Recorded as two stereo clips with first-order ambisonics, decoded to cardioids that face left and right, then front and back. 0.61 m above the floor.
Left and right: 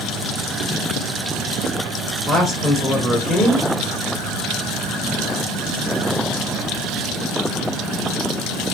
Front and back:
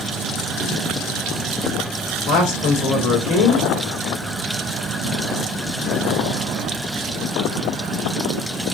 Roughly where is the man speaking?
Ahead.